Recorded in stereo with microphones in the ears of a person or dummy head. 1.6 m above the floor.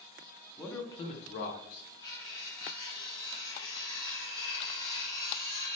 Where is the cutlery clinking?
30° left (ahead or behind), 0.9 m.